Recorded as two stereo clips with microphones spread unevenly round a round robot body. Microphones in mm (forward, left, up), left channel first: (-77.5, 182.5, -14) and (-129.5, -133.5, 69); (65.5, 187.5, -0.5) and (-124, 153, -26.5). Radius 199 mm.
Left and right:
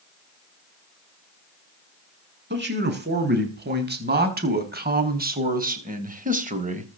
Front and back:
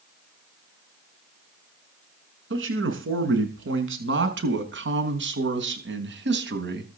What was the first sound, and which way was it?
A man speaking, 160° right.